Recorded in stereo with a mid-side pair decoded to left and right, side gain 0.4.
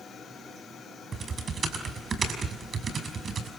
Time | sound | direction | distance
1.1 | typing on a keyboard | 50° right | 5.5 m